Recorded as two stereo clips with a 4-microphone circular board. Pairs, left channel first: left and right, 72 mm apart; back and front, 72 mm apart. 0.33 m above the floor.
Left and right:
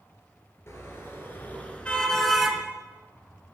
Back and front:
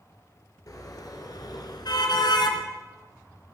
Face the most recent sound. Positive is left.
turn(degrees=-170)